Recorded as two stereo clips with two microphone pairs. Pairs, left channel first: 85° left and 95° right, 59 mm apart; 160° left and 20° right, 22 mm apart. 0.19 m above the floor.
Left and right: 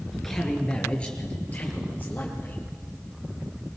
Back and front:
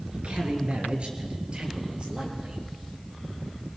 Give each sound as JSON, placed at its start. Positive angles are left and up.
{"t": 0.1, "sound": "a man speaking", "azimuth_deg": 0, "distance_m": 3.0}